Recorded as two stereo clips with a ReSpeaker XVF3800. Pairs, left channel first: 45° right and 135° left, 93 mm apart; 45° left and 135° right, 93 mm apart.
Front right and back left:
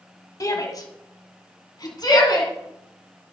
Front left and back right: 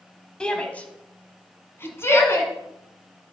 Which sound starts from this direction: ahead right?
A shout, at 0.4 s.